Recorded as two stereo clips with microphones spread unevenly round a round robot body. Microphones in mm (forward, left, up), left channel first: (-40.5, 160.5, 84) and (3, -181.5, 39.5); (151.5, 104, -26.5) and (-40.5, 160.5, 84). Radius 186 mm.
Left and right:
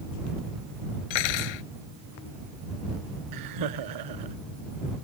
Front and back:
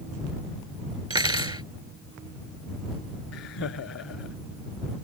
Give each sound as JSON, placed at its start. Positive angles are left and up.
{"t": 1.1, "sound": "cutlery clinking", "azimuth_deg": 95}
{"t": 3.3, "sound": "laughter", "azimuth_deg": -50}